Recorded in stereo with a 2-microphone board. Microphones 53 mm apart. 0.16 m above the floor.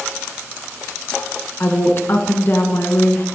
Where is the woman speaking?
45° left (ahead or behind), 1.8 m.